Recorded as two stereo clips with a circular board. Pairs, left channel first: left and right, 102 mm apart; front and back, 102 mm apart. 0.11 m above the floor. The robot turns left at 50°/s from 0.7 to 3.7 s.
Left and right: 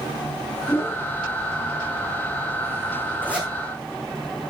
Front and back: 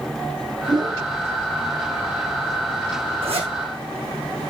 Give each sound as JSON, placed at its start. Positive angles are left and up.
{"t": 0.7, "sound": "a whoosh", "azimuth_deg": 155, "distance_m": 1.4}
{"t": 3.2, "sound": "a zipper", "azimuth_deg": -160, "distance_m": 3.0}